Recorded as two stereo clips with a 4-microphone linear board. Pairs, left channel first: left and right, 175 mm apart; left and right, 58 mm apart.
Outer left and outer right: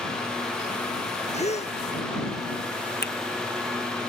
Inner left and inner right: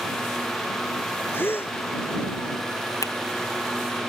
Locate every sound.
1.3 s a gasp: 40° left (ahead or behind)
3.0 s a finger snap: 70° left (ahead or behind)